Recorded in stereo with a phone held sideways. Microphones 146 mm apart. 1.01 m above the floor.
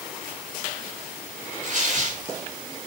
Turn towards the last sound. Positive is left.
turn(degrees=-60)  # may be behind; listen again after turning